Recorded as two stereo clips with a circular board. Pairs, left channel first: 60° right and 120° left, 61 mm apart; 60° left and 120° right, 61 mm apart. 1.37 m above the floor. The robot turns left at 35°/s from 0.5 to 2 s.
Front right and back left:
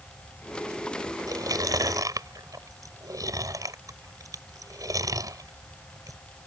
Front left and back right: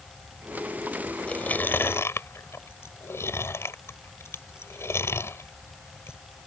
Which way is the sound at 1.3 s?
130° left.